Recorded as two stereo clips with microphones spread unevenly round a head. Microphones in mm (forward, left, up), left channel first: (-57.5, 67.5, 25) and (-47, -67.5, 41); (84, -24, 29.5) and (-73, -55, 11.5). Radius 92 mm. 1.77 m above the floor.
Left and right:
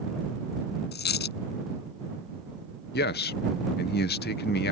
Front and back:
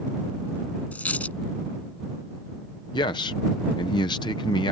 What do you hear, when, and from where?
0.9 s a dropped coin: 95° left
2.9 s a man speaking: 80° left